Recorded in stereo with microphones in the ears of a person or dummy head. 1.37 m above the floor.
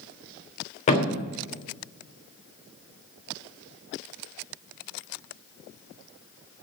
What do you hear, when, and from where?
0.9 s a thud: 40° left (ahead or behind), 1.2 m